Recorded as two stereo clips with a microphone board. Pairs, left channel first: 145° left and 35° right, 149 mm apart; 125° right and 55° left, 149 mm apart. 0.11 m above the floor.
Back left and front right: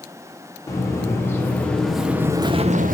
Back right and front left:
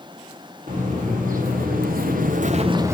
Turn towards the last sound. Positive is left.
turn(degrees=-20)